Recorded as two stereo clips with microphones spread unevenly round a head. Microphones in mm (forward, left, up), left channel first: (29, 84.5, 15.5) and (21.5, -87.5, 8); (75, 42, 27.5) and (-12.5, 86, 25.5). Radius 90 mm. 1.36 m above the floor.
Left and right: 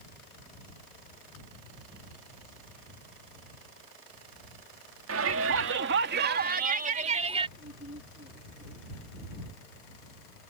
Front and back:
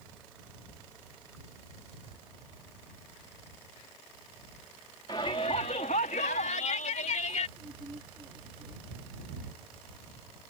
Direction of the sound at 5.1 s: 95° right.